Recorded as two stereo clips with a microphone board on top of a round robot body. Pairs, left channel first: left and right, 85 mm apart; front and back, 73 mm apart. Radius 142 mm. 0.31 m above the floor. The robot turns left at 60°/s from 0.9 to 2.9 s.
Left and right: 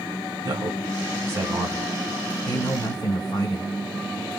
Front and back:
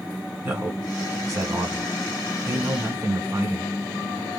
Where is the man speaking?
110° right, 1.8 m; by 3.7 s 130° left, 1.8 m.